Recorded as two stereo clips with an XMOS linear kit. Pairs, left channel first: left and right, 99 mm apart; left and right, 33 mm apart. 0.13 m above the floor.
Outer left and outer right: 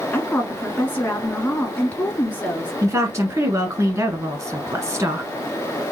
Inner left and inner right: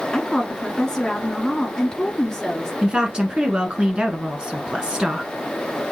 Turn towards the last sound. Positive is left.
turn(degrees=-30)  # may be behind; listen again after turning